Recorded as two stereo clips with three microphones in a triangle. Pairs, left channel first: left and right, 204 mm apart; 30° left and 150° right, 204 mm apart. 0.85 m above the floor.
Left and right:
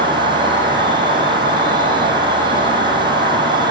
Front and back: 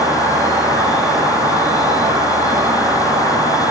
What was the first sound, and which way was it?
An insect, 70° right.